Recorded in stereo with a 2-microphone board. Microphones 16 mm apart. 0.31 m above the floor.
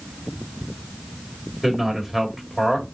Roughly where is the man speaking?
Right.